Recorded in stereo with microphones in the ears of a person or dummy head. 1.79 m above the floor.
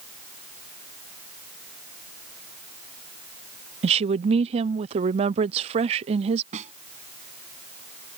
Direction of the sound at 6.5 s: 45° right (ahead or behind).